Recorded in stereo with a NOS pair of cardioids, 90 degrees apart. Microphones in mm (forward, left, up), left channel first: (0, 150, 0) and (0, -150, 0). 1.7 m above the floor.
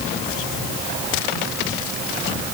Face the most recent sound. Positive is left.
No sound to turn to.